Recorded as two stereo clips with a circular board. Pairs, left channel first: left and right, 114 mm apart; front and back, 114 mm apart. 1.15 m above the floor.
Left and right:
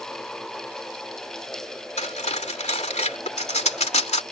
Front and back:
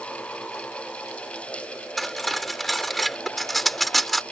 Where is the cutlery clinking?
90° left.